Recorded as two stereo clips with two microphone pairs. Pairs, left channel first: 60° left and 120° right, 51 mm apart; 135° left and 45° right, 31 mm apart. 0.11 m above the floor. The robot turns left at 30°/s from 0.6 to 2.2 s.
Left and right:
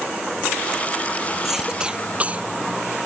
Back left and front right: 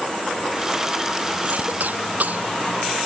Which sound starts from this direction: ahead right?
A cough, at 1.4 s.